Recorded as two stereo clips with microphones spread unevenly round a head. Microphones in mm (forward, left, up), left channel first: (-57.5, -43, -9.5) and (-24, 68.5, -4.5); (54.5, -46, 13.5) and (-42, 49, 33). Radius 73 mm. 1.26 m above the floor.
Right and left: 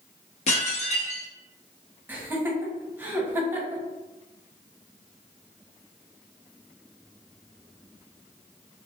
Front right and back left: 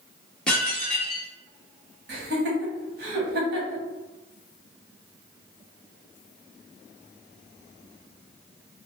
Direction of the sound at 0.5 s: 130° right.